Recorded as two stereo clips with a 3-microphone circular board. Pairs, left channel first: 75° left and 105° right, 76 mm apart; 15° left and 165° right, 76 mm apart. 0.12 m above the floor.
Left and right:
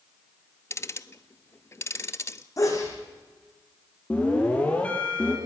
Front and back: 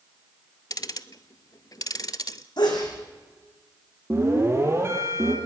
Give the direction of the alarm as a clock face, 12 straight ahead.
7 o'clock.